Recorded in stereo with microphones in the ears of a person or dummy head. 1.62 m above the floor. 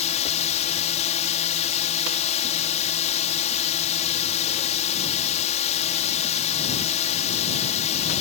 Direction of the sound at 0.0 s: 35° left (ahead or behind).